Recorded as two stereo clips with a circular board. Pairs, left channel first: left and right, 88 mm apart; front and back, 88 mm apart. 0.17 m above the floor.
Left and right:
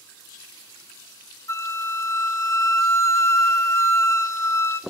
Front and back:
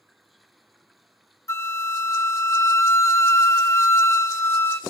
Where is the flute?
50° left, 0.6 m.